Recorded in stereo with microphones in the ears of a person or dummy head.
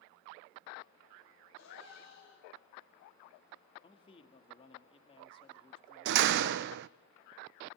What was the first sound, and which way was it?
A gasp, 70° left (ahead or behind).